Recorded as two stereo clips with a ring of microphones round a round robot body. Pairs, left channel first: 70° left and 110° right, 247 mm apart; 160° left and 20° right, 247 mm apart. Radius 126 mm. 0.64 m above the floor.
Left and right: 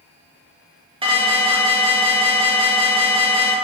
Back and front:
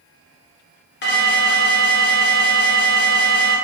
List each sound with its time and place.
1.0 s an alarm: 175° right, 0.6 m